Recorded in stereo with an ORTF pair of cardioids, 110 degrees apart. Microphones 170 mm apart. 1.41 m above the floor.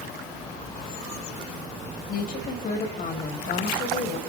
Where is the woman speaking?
55° left, 6 m.